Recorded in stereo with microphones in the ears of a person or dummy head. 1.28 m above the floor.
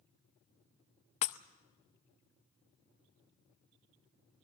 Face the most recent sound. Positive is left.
turn(degrees=45)  # may be behind; listen again after turning